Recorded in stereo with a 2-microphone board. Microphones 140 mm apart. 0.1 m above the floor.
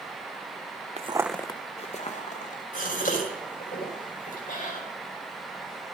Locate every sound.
1.0 s footsteps: 50° right (ahead or behind), 0.6 m; by 2.6 s 65° left (ahead or behind), 2.0 m
2.7 s a gasp: 85° left, 5 m